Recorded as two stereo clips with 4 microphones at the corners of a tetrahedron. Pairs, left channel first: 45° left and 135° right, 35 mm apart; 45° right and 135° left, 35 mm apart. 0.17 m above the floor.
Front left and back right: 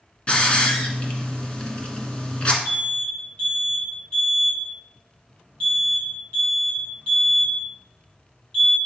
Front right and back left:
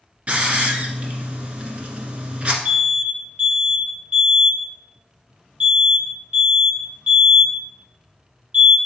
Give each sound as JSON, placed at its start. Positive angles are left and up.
{"t": 0.3, "sound": "a hiss", "azimuth_deg": 95, "distance_m": 1.3}
{"t": 2.6, "sound": "an alarm", "azimuth_deg": 100, "distance_m": 2.5}